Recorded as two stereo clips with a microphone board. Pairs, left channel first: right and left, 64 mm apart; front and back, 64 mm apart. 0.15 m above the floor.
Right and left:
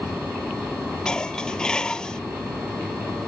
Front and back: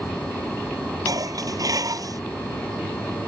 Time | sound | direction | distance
1.1 | dishes clattering | 165° right | ?